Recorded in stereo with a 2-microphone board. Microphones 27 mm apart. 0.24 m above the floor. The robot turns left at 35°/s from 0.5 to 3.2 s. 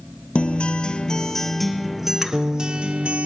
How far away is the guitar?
About 1.3 m.